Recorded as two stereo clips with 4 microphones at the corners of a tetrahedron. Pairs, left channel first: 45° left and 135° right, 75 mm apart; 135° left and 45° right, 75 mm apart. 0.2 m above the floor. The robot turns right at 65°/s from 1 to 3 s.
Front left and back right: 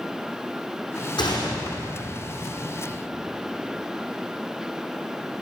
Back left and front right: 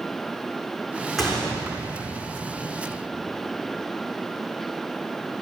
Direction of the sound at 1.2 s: 45° left.